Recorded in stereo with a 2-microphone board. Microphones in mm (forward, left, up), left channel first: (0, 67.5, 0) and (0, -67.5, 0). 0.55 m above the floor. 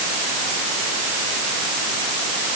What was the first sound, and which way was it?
Only background noise.